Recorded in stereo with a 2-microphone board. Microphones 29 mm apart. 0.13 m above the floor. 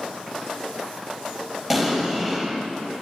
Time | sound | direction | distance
1.7 | an explosion | 20° right (ahead or behind) | 2.5 m